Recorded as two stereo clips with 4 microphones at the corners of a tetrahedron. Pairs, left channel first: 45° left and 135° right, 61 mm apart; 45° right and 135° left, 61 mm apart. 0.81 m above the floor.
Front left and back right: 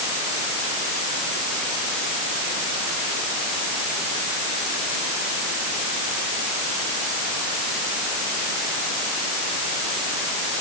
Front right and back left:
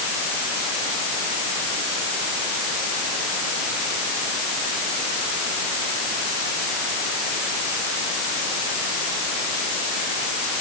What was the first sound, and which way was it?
Only background noise.